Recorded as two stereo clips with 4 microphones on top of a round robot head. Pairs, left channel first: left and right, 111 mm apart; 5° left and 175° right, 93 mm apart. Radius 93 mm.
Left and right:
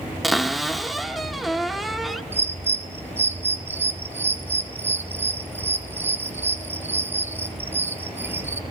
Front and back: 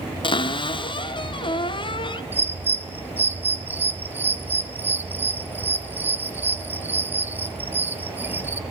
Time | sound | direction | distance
0.2 | a cupboard door | straight ahead | 1.5 m
2.3 | a bird | 135° right | 1.2 m